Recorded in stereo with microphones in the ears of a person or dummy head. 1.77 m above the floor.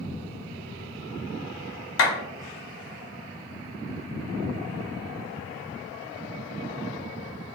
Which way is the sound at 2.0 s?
80° left.